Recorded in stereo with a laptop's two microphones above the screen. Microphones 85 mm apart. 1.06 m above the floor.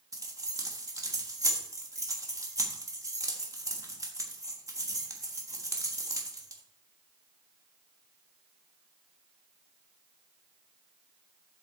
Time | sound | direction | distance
0.1 | keys jangling | 40° right (ahead or behind) | 1.3 m